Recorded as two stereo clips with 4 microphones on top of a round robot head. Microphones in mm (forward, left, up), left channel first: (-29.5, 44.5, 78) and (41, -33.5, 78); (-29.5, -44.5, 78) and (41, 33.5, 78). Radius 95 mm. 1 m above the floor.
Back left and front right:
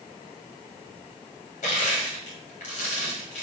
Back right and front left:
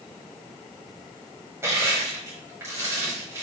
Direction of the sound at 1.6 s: 115° left.